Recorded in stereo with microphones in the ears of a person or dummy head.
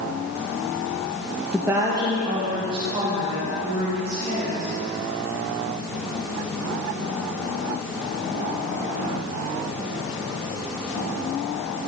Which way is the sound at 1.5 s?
5° right (ahead or behind).